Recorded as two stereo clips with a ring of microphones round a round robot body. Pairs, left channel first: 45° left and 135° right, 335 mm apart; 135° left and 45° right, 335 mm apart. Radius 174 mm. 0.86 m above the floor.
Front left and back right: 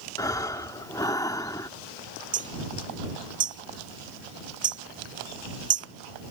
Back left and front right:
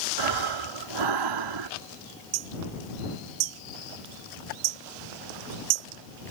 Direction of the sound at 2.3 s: 65° right.